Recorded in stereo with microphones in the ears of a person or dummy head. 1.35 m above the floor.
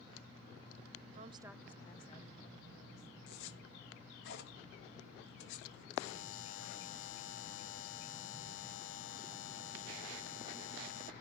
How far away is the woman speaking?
About 0.9 m.